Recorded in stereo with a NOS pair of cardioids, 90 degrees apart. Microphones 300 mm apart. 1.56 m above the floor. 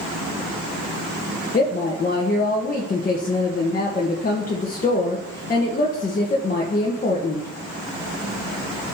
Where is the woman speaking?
30° left, 1.4 m.